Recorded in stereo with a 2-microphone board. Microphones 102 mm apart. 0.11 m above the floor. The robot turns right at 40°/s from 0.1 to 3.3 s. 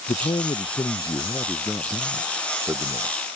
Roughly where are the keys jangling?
No keys jangling in this recording.